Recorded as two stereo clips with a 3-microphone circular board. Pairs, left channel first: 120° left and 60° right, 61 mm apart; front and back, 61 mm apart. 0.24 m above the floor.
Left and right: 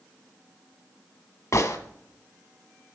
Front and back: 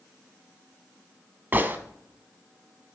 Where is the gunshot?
130° left, 0.8 m.